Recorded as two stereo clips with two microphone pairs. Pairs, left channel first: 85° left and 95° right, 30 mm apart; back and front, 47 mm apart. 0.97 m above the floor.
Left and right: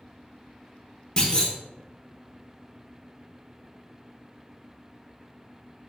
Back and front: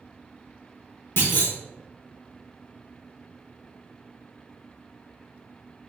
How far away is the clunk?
About 0.9 m.